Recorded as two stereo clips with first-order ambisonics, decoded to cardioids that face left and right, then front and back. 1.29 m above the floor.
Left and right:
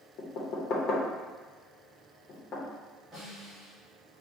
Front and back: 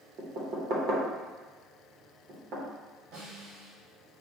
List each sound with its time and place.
0.2 s knocking: 135° left, 0.8 m
3.1 s a snare drum: 175° right, 1.8 m